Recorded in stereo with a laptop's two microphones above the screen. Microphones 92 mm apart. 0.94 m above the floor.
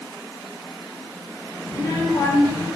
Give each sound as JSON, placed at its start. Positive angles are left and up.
{"t": 1.7, "sound": "a child speaking", "side_deg": 55, "distance_m": 3.0}